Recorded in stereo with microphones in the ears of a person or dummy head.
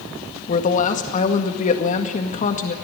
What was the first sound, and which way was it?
A woman speaking, 35° left (ahead or behind).